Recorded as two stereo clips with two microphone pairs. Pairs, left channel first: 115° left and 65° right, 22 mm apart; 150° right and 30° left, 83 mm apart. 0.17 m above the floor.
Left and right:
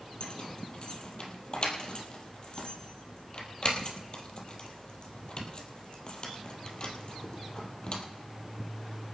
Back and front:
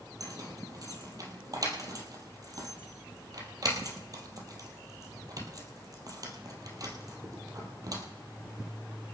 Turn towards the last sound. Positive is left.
turn(degrees=70)